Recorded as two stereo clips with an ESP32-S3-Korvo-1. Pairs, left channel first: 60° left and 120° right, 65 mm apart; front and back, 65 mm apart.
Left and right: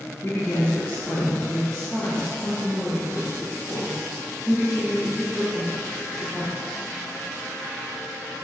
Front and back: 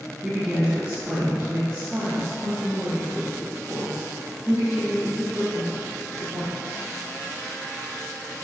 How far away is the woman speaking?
About 1.0 m.